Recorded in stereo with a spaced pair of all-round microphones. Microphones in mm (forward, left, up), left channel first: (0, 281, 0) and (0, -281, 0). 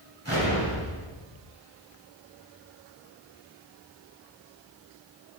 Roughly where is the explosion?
Right.